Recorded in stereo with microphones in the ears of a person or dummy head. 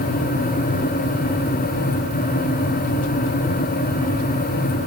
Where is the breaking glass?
No breaking glass in this recording.